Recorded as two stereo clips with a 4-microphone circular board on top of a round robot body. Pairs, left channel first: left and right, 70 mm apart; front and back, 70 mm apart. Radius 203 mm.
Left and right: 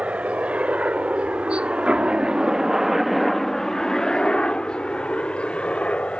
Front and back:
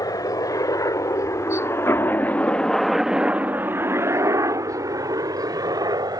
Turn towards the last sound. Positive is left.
turn(degrees=165)